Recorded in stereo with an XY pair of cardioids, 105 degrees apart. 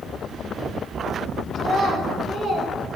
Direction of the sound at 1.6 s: 70° right.